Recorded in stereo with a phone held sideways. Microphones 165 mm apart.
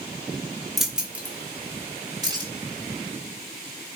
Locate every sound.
0.8 s keys jangling: centre (ahead or behind), 2 m; by 2.5 s 25° right (ahead or behind), 3.5 m